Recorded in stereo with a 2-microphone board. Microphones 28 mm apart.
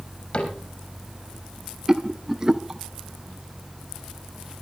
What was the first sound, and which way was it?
A cupboard door, 50° left (ahead or behind).